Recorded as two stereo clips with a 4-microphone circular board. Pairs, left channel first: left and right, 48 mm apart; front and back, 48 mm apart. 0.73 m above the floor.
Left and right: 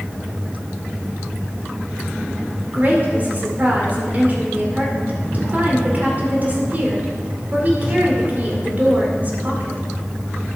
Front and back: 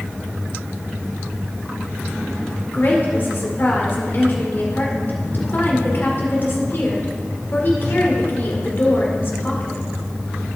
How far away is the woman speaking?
About 2 m.